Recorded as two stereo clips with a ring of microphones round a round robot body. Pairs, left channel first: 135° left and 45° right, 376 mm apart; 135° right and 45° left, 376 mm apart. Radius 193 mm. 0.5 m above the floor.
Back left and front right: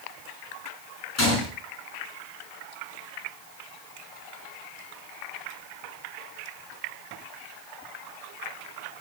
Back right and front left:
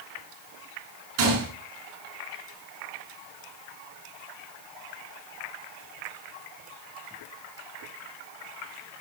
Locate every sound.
1.2 s a gunshot: 85° left, 6 m